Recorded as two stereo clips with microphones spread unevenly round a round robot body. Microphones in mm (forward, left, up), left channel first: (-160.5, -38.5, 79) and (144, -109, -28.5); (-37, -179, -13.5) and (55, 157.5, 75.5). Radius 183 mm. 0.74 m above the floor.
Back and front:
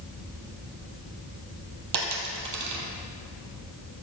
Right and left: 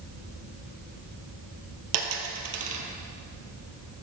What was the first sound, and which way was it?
A dropped coin, 35° left.